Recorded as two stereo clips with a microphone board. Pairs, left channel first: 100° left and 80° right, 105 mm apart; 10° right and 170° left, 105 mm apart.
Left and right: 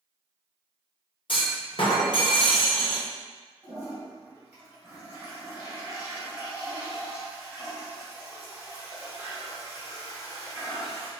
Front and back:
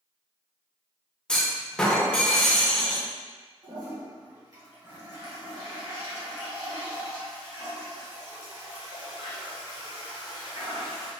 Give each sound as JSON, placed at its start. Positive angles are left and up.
{"t": 1.3, "sound": "a clunk", "azimuth_deg": 70, "distance_m": 0.8}
{"t": 3.6, "sound": "a toilet flushing", "azimuth_deg": -150, "distance_m": 1.9}